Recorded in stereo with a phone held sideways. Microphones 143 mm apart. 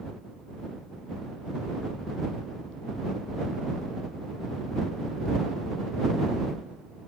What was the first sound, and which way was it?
Only background noise.